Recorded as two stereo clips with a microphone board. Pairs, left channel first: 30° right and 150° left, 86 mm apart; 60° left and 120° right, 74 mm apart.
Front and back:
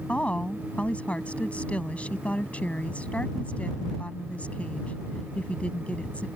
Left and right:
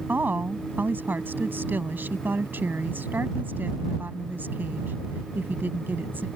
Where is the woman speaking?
90° right.